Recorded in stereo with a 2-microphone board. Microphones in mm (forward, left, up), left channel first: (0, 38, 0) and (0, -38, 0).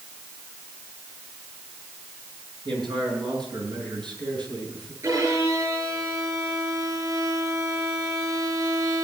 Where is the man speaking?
80° right, 6.5 m; by 4.9 s 70° right (ahead or behind), 5.5 m.